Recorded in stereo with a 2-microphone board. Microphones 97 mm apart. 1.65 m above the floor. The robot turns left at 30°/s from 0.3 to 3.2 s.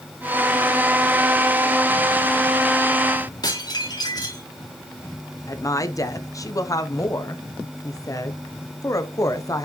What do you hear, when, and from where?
3.4 s dishes clattering: 45° left (ahead or behind), 2.5 m
5.5 s a woman speaking: 35° left (ahead or behind), 0.8 m